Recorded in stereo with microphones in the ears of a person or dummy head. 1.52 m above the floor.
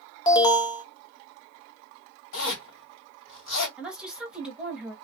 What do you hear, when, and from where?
0.3 s an alarm: 25° left (ahead or behind), 0.8 m
2.3 s a zipper: 60° left (ahead or behind), 2 m
3.8 s a woman speaking: 5° right (ahead or behind), 1.0 m